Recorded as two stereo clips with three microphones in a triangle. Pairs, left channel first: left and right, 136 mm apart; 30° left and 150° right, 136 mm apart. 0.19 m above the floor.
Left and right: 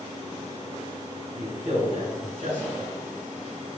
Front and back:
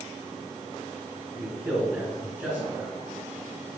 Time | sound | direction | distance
1.4 | a man speaking | 85° right | 1.8 m